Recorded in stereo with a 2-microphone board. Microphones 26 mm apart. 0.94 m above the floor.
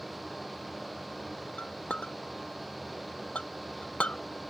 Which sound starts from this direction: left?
A clink, at 1.6 s.